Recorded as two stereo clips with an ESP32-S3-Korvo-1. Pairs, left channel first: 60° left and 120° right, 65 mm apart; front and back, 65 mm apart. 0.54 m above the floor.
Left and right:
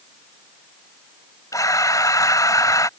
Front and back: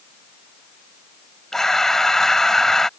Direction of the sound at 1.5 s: 85° left.